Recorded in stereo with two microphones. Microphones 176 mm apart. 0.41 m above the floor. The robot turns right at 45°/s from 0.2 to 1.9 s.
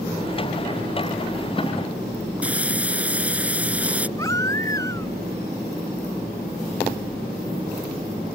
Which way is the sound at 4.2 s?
20° left (ahead or behind).